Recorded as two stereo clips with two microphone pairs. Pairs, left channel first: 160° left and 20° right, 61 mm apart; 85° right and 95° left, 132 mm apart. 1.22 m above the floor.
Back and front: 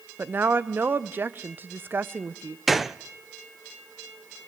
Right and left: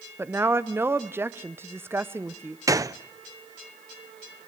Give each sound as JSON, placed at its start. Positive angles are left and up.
{"t": 0.2, "sound": "a woman speaking", "azimuth_deg": 25, "distance_m": 0.7}
{"t": 2.7, "sound": "a gunshot", "azimuth_deg": 70, "distance_m": 0.5}